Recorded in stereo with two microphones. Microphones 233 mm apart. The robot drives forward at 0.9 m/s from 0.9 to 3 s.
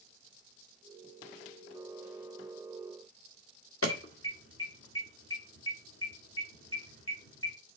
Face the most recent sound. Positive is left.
turn(degrees=60)  # may be behind; listen again after turning